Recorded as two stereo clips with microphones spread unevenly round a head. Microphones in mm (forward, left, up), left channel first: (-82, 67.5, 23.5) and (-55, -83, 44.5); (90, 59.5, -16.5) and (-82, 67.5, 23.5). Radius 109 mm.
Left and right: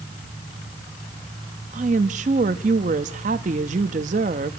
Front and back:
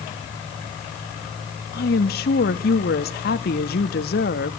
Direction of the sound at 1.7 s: 30° right.